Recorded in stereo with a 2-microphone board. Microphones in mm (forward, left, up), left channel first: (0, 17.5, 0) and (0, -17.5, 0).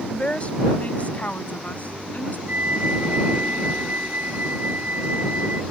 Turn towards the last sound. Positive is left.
turn(degrees=-50)  # may be behind; listen again after turning